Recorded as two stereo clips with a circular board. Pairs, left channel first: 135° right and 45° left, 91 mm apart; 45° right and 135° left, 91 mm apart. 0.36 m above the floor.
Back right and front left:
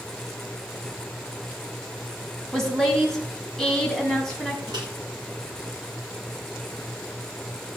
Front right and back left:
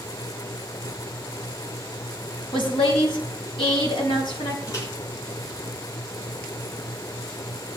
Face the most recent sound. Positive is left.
turn(degrees=5)